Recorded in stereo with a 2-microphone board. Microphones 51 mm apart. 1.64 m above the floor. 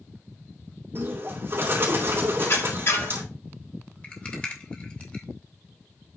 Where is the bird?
45° right (ahead or behind), 3 m.